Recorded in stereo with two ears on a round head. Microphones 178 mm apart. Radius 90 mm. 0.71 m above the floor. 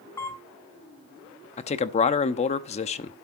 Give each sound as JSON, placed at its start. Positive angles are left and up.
{"t": 0.2, "sound": "a camera shutter", "side_deg": 15, "distance_m": 2.5}
{"t": 1.6, "sound": "a man speaking", "side_deg": 35, "distance_m": 0.9}